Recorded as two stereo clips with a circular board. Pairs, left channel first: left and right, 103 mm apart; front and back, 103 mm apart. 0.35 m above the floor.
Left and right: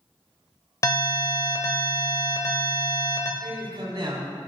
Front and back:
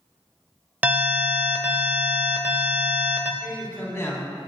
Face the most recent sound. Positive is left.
turn(degrees=-60)